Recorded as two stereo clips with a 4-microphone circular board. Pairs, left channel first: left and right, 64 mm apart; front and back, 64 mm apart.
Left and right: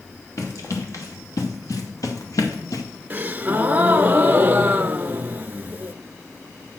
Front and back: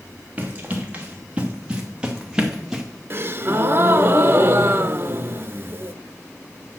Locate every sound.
0.4 s running footsteps: 115° left, 3 m; by 2.8 s 95° left, 1.7 m
3.1 s a gasp: 145° right, 0.5 m